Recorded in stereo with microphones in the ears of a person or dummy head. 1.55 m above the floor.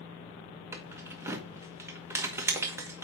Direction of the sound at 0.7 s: 15° right (ahead or behind).